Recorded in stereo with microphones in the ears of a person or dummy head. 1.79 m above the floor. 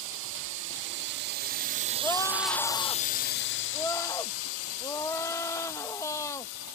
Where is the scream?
15° left (ahead or behind).